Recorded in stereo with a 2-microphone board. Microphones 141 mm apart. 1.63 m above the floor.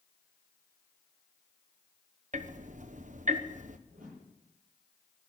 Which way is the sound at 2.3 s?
65° right (ahead or behind).